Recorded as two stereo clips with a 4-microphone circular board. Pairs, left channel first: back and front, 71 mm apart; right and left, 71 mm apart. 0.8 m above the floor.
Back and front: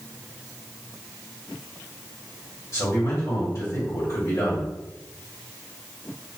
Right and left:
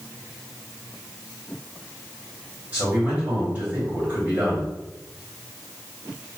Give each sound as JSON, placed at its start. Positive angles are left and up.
{"t": 2.7, "sound": "a man speaking", "azimuth_deg": 150, "distance_m": 1.7}